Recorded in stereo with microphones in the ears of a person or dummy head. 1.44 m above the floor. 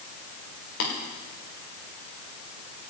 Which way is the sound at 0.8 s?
80° left.